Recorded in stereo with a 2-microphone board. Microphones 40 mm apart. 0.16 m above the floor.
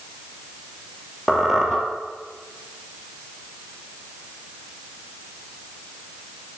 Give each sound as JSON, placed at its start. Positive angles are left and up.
{"t": 1.3, "sound": "a squeak", "side_deg": -5, "distance_m": 2.0}